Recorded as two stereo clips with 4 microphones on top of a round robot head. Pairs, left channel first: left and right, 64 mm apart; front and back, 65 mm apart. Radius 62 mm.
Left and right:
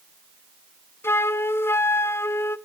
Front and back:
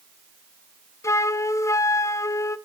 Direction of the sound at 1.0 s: 40° left.